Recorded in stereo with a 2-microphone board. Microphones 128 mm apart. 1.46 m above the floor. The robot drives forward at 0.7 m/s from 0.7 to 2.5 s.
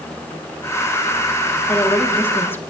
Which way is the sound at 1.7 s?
15° left (ahead or behind).